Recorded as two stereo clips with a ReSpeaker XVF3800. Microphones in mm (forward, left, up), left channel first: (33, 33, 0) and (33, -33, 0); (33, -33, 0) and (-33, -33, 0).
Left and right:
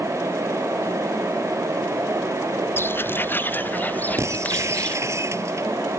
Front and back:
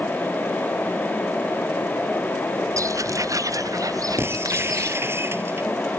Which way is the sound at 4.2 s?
130° right.